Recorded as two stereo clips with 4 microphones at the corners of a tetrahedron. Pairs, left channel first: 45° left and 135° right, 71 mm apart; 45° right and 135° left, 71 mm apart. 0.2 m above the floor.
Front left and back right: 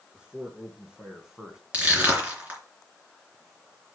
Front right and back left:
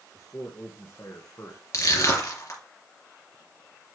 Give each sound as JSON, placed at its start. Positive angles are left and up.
{"t": 0.1, "sound": "a man speaking", "azimuth_deg": -60, "distance_m": 3.0}
{"t": 1.7, "sound": "crushing", "azimuth_deg": -70, "distance_m": 3.5}